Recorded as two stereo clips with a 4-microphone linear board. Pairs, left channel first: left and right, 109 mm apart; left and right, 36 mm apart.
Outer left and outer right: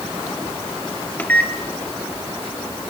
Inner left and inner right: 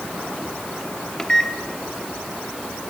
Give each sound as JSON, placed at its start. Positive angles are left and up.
{"t": 1.2, "sound": "a microwave", "side_deg": 15, "distance_m": 1.9}